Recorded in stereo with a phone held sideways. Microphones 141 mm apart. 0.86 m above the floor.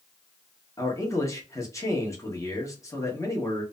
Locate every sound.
0.8 s a man speaking: 25° left (ahead or behind), 1.0 m